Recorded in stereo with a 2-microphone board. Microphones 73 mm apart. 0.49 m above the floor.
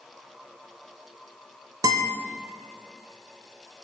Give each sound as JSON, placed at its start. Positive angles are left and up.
{"t": 1.8, "sound": "a guitar", "side_deg": -70, "distance_m": 1.0}